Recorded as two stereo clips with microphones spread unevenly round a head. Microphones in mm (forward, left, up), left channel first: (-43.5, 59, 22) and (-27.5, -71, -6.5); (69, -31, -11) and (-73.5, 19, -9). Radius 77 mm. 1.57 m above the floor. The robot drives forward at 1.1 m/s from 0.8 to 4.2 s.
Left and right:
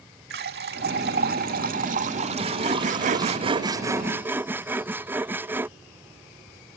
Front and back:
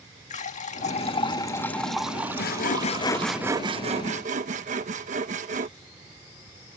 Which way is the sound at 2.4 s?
20° right.